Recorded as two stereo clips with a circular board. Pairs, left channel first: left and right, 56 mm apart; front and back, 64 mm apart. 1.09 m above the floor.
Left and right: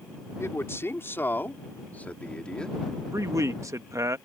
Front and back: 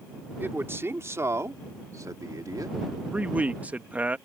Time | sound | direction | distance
0.4 | a man speaking | 125° left | ?
3.1 | a man speaking | 115° right | ?